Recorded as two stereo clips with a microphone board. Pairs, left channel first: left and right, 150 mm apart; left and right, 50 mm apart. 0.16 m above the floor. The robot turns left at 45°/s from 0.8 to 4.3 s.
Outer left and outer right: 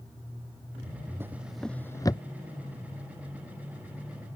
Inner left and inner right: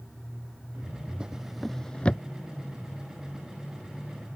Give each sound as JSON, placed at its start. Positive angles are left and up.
{"t": 1.2, "sound": "a drawer", "side_deg": -15}